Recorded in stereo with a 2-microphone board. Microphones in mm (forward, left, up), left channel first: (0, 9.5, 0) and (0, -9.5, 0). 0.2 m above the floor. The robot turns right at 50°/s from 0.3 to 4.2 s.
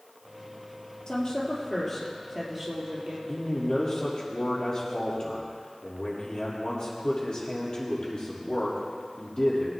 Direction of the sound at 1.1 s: 130° left.